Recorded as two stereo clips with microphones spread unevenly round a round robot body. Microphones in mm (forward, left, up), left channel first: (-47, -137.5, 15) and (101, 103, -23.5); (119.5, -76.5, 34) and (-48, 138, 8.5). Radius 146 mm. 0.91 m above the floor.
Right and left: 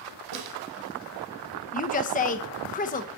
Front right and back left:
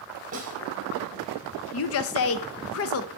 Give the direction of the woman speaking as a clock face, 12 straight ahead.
2 o'clock.